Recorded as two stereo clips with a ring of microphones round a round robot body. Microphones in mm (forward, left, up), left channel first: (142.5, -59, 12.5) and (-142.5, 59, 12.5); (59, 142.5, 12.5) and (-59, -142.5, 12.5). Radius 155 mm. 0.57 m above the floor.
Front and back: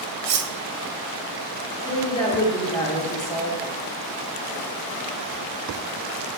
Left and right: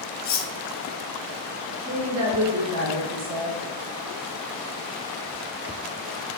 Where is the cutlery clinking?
125° left, 0.6 m.